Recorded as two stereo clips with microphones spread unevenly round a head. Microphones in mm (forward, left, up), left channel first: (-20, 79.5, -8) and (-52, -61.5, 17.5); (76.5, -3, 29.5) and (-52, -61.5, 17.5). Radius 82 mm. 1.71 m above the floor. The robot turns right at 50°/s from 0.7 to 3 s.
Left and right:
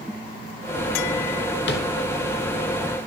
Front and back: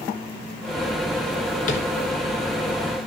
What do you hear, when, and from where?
1.7 s tapping: 60° left, 1.6 m; by 1.8 s 70° left, 1.6 m